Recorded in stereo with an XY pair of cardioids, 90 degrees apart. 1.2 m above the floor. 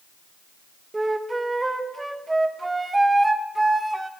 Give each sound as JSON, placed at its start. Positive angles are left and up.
{"t": 0.9, "sound": "a flute", "azimuth_deg": -15, "distance_m": 1.1}